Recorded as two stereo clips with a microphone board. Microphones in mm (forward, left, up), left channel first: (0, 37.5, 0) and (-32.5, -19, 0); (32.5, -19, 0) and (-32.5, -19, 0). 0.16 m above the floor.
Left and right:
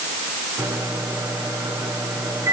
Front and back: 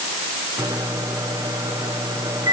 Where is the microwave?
160° right, 9 m.